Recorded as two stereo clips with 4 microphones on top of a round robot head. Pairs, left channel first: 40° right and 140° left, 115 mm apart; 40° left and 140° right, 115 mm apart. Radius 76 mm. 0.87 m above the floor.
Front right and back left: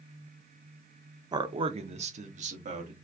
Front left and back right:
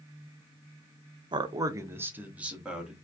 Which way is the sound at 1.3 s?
175° right.